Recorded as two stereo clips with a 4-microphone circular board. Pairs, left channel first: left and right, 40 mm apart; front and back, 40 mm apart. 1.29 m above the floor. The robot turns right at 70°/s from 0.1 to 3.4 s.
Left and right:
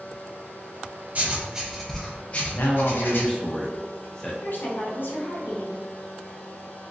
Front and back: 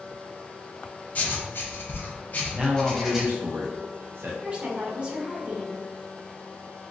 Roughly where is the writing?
Ahead right.